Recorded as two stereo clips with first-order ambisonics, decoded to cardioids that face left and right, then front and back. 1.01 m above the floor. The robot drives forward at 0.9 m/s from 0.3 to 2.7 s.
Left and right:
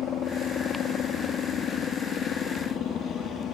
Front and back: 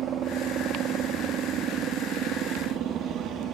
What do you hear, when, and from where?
0.0 s a helicopter: 135° left; by 3.5 s 140° left